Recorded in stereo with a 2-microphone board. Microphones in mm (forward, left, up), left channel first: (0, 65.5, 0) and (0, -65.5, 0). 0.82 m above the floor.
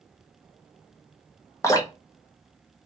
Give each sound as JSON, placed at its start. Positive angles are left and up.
{"t": 1.6, "sound": "dripping", "side_deg": 25, "distance_m": 1.1}